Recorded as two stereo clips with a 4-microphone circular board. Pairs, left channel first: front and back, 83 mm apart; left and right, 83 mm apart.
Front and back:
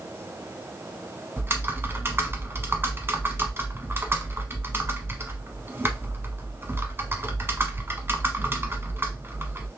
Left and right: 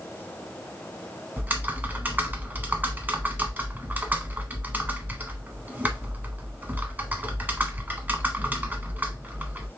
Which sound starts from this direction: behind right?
Typing on a keyboard, at 1.4 s.